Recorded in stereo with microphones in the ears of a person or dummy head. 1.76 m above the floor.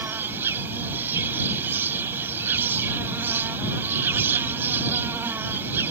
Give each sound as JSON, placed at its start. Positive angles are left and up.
{"t": 0.0, "sound": "an insect", "side_deg": -15}